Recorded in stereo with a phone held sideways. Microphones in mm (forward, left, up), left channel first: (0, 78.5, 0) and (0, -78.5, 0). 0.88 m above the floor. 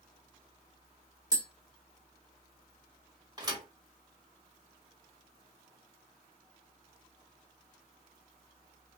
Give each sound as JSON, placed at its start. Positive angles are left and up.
{"t": 1.3, "sound": "tapping", "side_deg": -25, "distance_m": 0.9}
{"t": 3.4, "sound": "a thud", "side_deg": -25, "distance_m": 1.0}